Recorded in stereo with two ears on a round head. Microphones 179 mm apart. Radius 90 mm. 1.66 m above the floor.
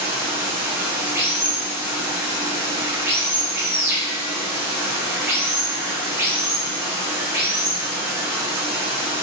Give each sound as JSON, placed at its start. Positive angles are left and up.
{"t": 0.0, "sound": "running water", "side_deg": -10, "distance_m": 1.0}